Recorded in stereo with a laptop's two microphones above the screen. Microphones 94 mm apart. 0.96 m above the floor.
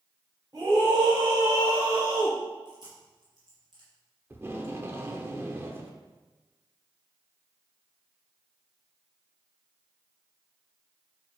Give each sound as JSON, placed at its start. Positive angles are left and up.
{"t": 0.5, "sound": "a scream", "side_deg": -45, "distance_m": 4.0}
{"t": 2.6, "sound": "chewing", "side_deg": -50, "distance_m": 4.5}
{"t": 4.3, "sound": "tape being pulled", "side_deg": -25, "distance_m": 0.8}